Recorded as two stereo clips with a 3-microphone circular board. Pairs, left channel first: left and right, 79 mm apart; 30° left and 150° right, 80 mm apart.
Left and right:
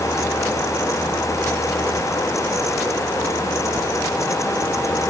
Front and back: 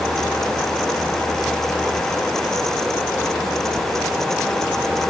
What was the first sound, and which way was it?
Only background noise.